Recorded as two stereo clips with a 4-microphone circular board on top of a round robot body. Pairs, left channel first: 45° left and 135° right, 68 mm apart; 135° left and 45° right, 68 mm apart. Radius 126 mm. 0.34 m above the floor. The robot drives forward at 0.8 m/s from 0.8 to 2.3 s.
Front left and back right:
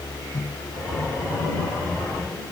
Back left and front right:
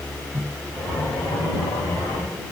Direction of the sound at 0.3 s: 5° left.